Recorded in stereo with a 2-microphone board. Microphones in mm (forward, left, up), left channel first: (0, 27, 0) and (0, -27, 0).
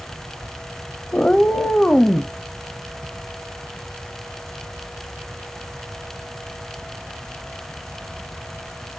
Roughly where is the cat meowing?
Centre.